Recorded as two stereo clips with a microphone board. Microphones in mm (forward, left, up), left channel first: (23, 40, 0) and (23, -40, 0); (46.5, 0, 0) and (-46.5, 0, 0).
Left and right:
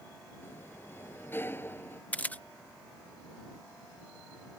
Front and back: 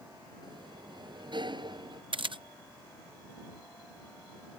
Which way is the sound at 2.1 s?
160° left.